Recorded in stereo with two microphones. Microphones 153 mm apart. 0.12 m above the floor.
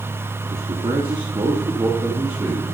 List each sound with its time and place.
0.5 s a man speaking: 40° right (ahead or behind), 2 m; by 2.8 s 20° right (ahead or behind), 4.5 m